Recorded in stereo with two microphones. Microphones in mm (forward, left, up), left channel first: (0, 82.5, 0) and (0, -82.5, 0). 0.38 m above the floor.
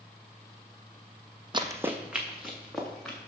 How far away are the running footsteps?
About 0.6 m.